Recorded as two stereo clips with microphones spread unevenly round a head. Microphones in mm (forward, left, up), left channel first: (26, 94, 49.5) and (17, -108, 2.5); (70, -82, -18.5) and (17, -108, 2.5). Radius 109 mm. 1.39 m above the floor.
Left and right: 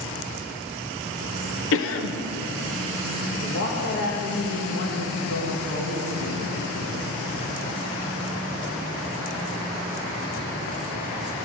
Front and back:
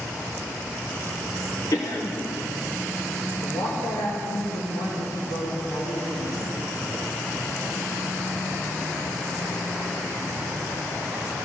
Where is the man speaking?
50° left, 2.5 m.